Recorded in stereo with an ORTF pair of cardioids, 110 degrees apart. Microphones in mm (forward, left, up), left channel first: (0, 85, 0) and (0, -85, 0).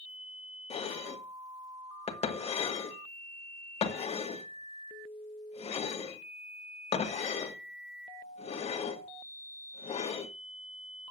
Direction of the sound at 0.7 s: 40° left.